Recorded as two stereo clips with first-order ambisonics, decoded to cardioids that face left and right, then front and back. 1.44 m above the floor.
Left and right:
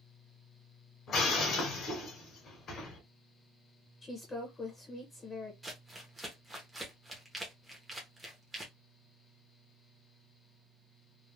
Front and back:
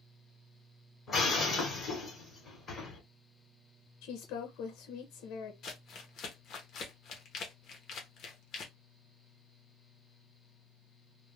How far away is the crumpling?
About 0.8 m.